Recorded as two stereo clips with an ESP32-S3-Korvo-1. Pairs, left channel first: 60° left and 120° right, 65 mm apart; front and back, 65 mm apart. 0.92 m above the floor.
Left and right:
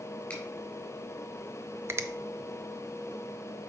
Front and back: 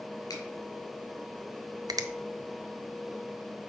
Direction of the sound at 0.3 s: 10° right.